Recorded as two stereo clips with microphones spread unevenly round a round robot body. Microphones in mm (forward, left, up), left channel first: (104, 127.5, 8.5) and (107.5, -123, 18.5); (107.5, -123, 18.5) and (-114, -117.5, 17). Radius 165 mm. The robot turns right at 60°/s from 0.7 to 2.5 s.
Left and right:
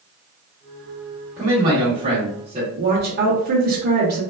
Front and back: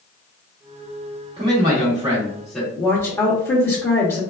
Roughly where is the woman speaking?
Right.